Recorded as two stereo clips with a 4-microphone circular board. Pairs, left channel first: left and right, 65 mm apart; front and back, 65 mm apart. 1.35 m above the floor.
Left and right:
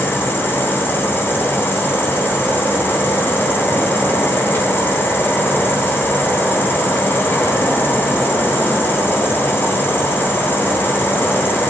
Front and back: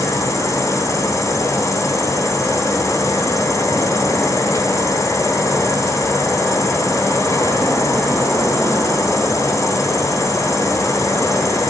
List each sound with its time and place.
0.0 s an insect: 35° left, 6 m